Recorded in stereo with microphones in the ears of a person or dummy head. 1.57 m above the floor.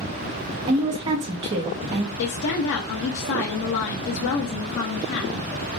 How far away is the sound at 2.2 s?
About 0.7 m.